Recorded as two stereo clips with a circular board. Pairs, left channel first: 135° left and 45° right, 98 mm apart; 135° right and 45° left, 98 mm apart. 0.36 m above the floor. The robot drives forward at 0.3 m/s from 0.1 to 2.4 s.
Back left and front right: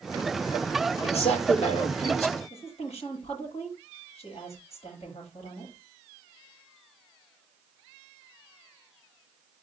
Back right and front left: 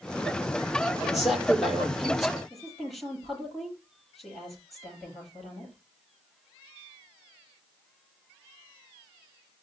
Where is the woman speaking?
135° left, 9 m.